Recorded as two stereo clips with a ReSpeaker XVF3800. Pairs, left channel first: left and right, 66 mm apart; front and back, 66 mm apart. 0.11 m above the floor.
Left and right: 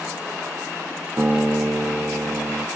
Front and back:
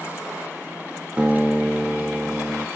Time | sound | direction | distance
1.2 | a guitar | 115° right | 0.8 m